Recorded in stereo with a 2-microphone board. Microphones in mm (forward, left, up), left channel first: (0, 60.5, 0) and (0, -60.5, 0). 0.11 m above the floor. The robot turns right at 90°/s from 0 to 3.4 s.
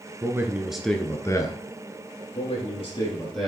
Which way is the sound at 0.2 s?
50° right.